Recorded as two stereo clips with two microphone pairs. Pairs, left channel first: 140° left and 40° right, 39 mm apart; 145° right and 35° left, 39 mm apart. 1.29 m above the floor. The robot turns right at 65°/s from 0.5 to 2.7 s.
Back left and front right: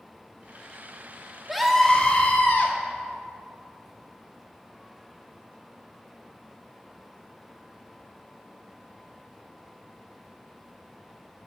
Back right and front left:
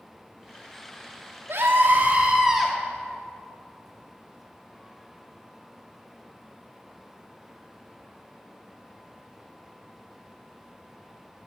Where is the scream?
45° left, 2.5 m; by 2.8 s 125° left, 2.5 m.